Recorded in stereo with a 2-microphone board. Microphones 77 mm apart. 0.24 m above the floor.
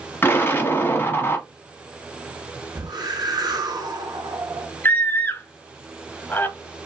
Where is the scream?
25° left (ahead or behind), 1.1 m.